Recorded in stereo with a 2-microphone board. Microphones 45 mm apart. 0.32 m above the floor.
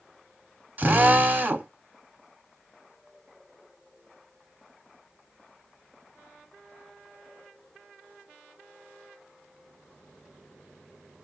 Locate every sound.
0.8 s a drill: 40° right (ahead or behind), 0.8 m